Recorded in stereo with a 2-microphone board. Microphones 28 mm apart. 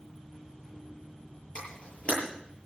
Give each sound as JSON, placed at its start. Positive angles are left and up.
{"t": 1.6, "sound": "a camera shutter", "side_deg": 50, "distance_m": 9.5}